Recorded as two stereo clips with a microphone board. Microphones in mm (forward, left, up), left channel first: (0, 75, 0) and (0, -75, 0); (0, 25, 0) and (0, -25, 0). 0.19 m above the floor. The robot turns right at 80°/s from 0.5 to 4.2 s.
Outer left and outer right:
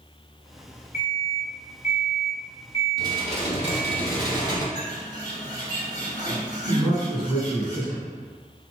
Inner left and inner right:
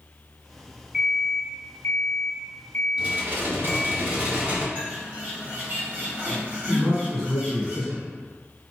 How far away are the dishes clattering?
About 1.0 m.